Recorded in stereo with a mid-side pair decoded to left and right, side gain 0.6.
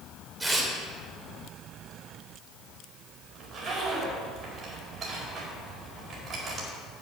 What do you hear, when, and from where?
0.4 s tearing paper: 20° right, 3 m
3.4 s a zipper: 45° right, 4.5 m